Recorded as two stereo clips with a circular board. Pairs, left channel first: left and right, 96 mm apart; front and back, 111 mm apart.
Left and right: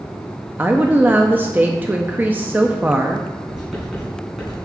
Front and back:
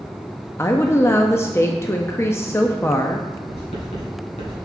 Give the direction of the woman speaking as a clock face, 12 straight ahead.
1 o'clock.